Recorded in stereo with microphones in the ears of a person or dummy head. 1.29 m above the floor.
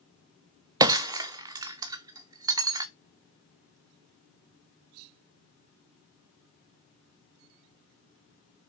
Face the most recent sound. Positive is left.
turn(degrees=-20)  # may be behind; listen again after turning